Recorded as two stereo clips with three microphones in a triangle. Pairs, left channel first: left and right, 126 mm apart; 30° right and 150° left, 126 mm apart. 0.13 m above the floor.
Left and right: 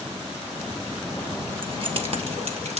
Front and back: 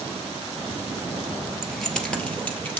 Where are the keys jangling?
125° right, 1.5 m; by 2.8 s 100° right, 2.0 m.